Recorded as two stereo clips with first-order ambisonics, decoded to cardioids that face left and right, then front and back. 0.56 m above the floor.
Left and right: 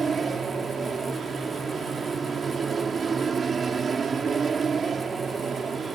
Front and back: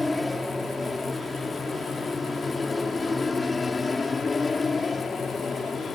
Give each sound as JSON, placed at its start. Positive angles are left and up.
{"t": 0.0, "sound": "an aircraft", "azimuth_deg": -80}